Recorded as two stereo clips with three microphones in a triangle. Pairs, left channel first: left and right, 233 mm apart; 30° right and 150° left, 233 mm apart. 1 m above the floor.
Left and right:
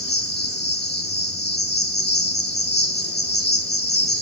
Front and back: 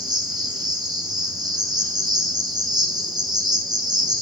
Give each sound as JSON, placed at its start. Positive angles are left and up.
{"t": 0.0, "sound": "an insect", "azimuth_deg": 85, "distance_m": 0.8}